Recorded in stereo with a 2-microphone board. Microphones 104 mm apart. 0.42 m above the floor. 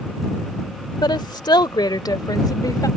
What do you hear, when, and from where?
1.0 s a woman speaking: 45° left (ahead or behind); by 2.9 s 35° left (ahead or behind)